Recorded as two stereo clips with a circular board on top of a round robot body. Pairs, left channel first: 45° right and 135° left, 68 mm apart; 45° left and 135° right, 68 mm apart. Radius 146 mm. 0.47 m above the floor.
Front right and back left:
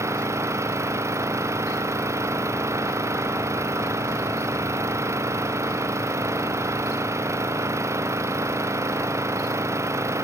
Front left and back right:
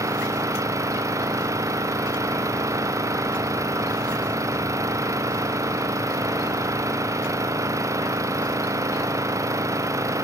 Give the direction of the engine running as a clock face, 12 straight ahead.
6 o'clock.